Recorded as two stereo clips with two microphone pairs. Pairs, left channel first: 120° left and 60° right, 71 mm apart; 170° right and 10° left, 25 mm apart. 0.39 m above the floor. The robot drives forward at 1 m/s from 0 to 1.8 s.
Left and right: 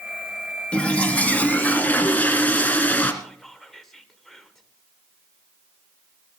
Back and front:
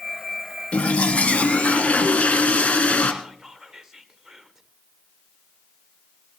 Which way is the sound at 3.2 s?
40° left.